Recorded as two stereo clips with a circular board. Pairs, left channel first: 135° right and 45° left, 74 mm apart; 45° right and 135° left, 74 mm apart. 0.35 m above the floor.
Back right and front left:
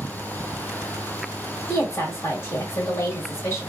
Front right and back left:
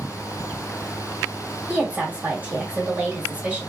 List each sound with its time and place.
1.7 s a woman speaking: 165° right, 1.7 m